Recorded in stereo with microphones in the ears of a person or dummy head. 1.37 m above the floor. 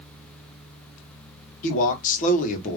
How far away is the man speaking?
About 1.4 m.